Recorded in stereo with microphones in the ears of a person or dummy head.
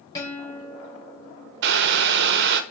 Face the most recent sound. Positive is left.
turn(degrees=-60)  # may be behind; listen again after turning